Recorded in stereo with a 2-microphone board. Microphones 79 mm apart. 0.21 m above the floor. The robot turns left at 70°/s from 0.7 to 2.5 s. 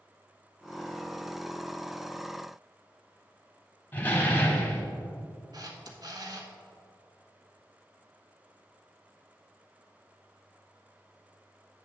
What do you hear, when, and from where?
3.9 s a door slam: 25° left (ahead or behind), 1.0 m
5.5 s a camera shutter: 55° right (ahead or behind), 1.1 m